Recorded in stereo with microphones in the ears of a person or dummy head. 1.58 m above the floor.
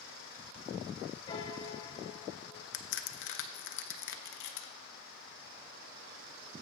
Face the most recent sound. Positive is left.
turn(degrees=65)  # may be behind; listen again after turning